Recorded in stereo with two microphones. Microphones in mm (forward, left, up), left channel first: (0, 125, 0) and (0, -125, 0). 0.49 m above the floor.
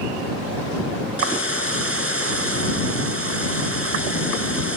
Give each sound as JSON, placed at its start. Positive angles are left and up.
{"t": 1.2, "sound": "a hiss", "side_deg": -60}